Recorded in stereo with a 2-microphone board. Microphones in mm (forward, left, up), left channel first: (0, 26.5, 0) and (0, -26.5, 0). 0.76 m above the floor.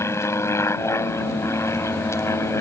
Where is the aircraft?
60° left (ahead or behind).